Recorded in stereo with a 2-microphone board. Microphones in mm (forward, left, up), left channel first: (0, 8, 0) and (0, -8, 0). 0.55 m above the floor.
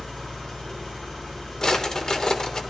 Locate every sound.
0.0 s an engine running: 65° left (ahead or behind), 2.5 m
1.6 s a drawer: 45° left (ahead or behind), 0.6 m